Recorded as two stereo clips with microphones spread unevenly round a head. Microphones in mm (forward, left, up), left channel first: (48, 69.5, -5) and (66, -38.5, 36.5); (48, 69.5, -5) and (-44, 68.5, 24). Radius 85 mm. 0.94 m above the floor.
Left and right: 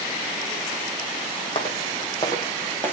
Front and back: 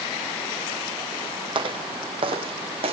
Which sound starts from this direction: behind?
Footsteps, at 1.6 s.